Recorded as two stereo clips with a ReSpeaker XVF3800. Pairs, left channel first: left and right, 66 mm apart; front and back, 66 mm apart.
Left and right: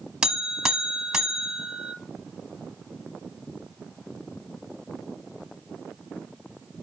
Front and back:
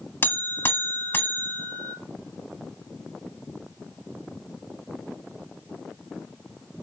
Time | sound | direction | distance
0.2 | a buzzer | 20° right | 1.0 m